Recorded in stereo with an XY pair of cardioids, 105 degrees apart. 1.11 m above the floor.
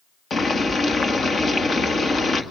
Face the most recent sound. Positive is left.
turn(degrees=40)